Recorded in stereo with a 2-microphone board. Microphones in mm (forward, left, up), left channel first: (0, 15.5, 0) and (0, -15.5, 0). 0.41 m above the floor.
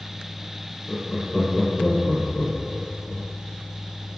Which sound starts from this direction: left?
Laughter, at 0.9 s.